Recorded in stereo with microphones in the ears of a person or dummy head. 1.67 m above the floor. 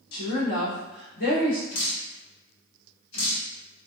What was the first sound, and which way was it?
A woman speaking, 85° left.